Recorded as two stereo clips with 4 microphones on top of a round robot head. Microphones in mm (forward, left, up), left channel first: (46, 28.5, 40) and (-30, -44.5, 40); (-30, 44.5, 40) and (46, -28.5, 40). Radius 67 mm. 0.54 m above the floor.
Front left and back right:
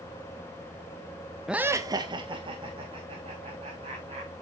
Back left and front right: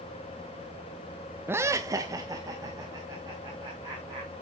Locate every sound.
1.5 s laughter: 60° right, 0.6 m; by 4.3 s 105° right, 4 m